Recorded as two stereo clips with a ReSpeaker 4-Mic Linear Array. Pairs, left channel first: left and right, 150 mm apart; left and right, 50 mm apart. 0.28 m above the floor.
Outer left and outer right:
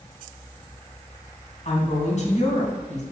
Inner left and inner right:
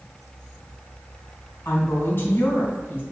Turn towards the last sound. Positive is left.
turn(degrees=50)  # may be behind; listen again after turning